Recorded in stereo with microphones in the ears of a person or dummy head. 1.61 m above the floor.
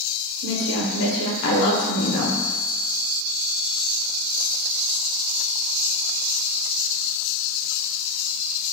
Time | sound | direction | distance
0.4 | a woman speaking | 70° left (ahead or behind) | 1.0 m